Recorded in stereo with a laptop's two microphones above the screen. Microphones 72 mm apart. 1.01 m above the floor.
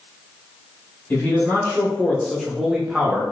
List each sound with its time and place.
1.1 s a man speaking: 30° left (ahead or behind), 1.3 m; by 3.2 s 15° right (ahead or behind), 1.4 m